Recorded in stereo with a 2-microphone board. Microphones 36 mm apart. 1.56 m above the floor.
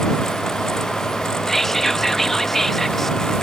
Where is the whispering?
10° left (ahead or behind).